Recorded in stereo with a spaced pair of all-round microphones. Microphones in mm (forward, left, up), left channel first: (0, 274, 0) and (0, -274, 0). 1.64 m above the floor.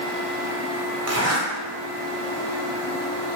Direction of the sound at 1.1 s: 30° right (ahead or behind).